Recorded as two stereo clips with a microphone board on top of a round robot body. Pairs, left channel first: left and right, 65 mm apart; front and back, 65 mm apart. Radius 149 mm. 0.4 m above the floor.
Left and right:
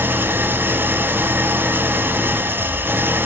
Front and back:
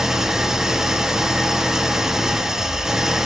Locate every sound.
0.0 s an engine running: 105° right, 0.7 m